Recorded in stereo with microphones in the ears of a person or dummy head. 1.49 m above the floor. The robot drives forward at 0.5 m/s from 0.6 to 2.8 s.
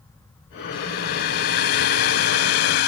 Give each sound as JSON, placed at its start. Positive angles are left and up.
{"t": 0.7, "sound": "a hair dryer", "side_deg": 55}